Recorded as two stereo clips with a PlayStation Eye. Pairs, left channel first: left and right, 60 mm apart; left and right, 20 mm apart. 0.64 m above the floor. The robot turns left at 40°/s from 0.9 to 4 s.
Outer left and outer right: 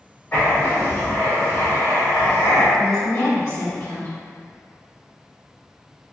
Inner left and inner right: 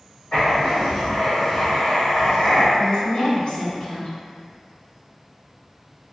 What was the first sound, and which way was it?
Writing, 150° left.